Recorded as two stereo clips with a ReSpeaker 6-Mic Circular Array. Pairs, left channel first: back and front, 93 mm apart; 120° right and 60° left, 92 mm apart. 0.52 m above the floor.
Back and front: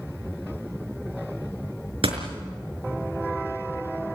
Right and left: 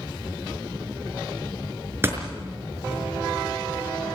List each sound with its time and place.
2.0 s a door slam: 5° right, 5 m